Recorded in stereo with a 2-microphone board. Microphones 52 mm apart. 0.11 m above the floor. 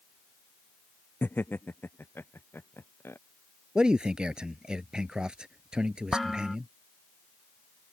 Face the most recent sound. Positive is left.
turn(degrees=5)  # may be behind; listen again after turning